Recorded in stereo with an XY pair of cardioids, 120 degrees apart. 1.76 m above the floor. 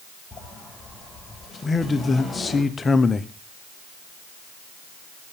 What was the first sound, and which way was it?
A sliding door, 15° left.